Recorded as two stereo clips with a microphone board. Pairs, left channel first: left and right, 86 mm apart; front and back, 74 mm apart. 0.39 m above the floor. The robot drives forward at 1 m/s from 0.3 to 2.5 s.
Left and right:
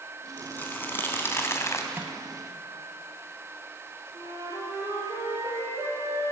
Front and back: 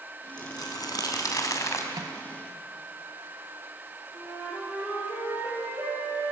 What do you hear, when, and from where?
0.4 s crumpling: 20° left, 3 m; by 1.8 s 40° left, 1.8 m
1.9 s a microwave: 155° right, 1.9 m
4.1 s a flute: 125° right, 7.5 m